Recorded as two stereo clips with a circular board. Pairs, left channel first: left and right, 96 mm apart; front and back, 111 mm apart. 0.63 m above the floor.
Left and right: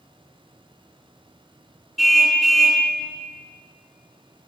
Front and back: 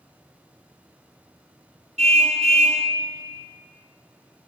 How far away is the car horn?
About 3 m.